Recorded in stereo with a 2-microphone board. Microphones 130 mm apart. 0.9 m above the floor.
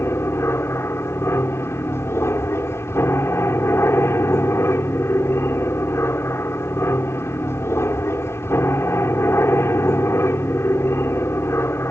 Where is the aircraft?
20° left (ahead or behind).